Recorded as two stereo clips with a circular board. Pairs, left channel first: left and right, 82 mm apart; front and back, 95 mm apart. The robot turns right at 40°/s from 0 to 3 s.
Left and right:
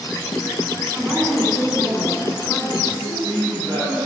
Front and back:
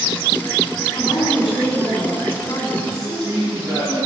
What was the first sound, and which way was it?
A woman speaking, straight ahead.